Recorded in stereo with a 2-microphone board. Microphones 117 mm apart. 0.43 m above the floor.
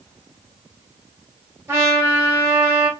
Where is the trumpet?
25° right (ahead or behind), 0.9 m.